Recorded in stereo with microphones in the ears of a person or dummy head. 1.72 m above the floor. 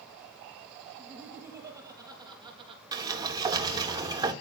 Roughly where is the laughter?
Centre.